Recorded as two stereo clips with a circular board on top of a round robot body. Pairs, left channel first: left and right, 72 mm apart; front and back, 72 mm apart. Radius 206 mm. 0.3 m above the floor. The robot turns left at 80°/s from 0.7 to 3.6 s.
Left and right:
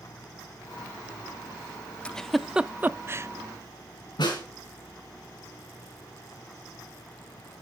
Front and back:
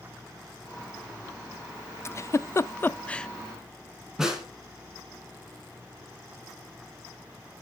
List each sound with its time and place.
2.0 s a giggle: 20° left, 0.6 m; by 3.3 s 75° right, 0.6 m
4.2 s a snare drum: 95° left, 3.5 m